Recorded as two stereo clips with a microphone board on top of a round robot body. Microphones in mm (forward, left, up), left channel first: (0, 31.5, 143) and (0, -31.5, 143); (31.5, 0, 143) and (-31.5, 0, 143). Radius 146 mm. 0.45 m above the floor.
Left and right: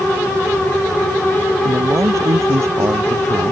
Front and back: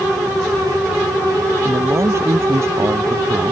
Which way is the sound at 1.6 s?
135° right.